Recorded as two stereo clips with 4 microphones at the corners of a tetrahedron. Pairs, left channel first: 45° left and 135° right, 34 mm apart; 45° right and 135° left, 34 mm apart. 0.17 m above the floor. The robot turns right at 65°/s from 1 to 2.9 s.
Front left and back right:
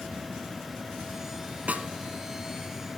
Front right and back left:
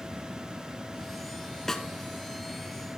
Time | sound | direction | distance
1.7 | a snare drum | 120° right | 0.7 m